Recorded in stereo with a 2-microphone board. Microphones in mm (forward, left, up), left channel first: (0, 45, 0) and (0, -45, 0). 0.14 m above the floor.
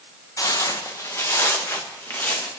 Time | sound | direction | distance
0.4 | footsteps | 45° left (ahead or behind) | 1.5 m